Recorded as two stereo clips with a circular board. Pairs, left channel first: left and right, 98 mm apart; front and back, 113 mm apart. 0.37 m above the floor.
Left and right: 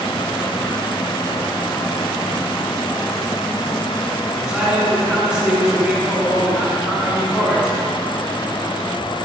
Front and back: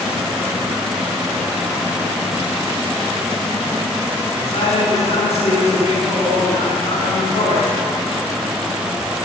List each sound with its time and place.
4.3 s a man speaking: straight ahead, 3 m